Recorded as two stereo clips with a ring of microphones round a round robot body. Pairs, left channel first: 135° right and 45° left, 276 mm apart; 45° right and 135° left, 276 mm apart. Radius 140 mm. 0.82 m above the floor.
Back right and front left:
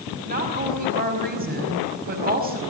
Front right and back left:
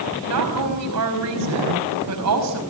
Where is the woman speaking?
105° left, 5 m.